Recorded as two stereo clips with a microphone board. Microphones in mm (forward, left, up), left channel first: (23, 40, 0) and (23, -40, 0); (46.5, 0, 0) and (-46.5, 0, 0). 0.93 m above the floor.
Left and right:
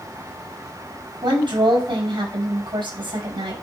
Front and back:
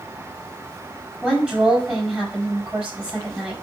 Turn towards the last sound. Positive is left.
turn(degrees=-105)